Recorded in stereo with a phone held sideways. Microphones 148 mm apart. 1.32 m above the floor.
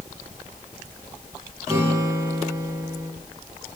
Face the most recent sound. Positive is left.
turn(degrees=-20)  # may be behind; listen again after turning